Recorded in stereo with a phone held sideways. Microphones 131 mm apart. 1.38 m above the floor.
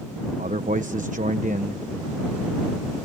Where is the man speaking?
70° right (ahead or behind).